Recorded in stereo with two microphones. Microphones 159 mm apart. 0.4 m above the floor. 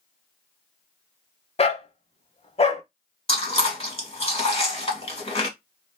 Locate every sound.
1.6 s a dog barking: 40° left (ahead or behind), 0.6 m
3.3 s chewing: 40° left (ahead or behind), 1.7 m